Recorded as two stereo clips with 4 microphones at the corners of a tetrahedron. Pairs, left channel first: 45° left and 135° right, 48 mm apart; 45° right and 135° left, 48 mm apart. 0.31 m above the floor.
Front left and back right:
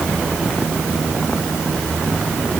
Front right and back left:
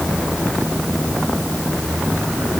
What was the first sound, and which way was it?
Only background noise.